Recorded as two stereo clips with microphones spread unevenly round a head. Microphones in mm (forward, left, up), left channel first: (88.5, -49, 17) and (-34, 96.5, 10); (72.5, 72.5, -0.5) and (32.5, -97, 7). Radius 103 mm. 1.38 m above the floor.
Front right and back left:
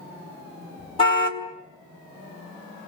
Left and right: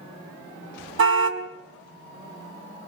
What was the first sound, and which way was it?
A car horn, 115° right.